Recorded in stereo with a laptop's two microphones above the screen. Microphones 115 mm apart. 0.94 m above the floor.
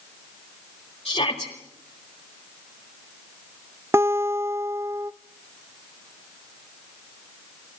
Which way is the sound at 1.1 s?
55° left (ahead or behind).